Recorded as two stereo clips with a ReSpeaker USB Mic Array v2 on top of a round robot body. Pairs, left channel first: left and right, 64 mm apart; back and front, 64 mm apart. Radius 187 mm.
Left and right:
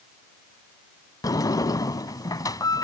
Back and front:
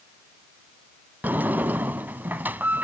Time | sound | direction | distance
1.2 | a sliding door | 65° left | ?